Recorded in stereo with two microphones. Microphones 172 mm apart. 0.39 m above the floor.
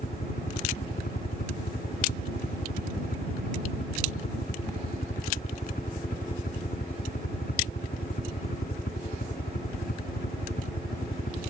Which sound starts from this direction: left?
A helicopter, at 0.0 s.